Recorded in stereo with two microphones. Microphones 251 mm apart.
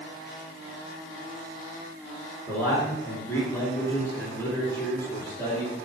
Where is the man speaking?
10° left (ahead or behind), 5 m.